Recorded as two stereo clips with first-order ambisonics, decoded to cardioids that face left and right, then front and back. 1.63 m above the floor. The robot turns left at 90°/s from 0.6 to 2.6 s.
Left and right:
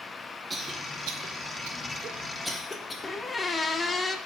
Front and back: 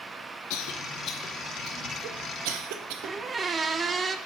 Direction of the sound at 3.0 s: 155° left.